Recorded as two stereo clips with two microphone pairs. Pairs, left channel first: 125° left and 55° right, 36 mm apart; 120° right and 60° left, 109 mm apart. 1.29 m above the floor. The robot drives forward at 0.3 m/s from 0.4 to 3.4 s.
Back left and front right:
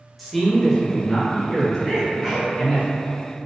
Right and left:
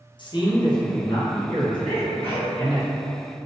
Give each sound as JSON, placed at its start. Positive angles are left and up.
{"t": 0.2, "sound": "a man speaking", "azimuth_deg": -150, "distance_m": 0.6}
{"t": 1.9, "sound": "a sneeze", "azimuth_deg": -135, "distance_m": 1.1}